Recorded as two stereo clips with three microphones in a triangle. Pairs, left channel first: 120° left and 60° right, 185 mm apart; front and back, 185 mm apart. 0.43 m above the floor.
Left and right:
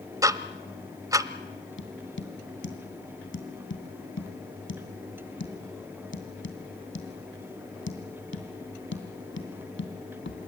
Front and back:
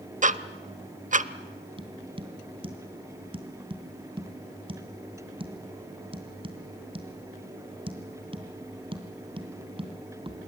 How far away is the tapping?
About 2.5 m.